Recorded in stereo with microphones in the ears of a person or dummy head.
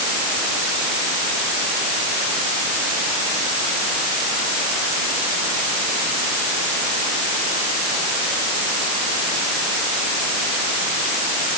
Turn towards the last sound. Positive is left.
No sound to turn to.